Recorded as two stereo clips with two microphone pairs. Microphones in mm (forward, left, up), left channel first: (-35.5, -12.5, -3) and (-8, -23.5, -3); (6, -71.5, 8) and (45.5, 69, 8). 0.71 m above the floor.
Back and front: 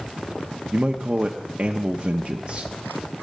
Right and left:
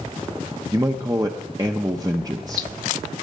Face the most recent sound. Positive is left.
turn(degrees=20)